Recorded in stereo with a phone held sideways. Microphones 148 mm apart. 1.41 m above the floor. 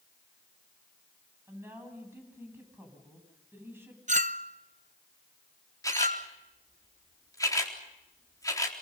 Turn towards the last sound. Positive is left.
turn(degrees=25)  # may be behind; listen again after turning